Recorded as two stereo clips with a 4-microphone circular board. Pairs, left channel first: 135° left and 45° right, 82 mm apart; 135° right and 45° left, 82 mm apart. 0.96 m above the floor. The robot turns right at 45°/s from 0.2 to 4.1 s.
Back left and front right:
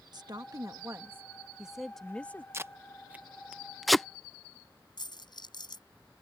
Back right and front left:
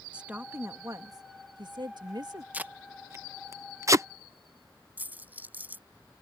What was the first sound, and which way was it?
A woman speaking, 30° right.